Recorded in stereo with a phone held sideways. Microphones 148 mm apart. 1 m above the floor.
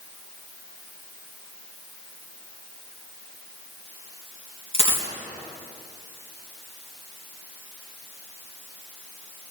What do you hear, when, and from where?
4.7 s a dropped coin: 45° left (ahead or behind), 3.5 m